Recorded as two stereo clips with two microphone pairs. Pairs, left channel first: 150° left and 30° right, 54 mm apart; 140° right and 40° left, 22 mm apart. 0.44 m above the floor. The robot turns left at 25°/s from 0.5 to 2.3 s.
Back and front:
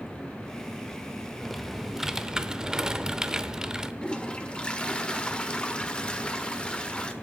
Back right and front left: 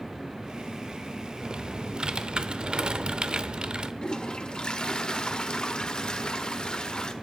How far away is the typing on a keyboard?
About 0.7 m.